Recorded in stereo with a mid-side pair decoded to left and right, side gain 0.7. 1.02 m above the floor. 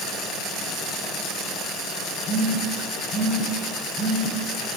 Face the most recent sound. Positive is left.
turn(degrees=25)